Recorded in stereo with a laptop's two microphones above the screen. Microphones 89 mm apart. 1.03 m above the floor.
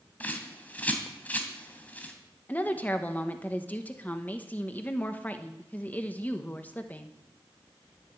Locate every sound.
0.2 s a bird: 15° left (ahead or behind), 2.5 m
2.5 s a woman speaking: 20° left (ahead or behind), 1.0 m